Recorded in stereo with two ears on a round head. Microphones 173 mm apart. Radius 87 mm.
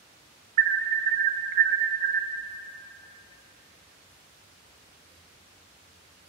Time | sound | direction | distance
0.6 | an alarm | 45° right (ahead or behind) | 0.5 m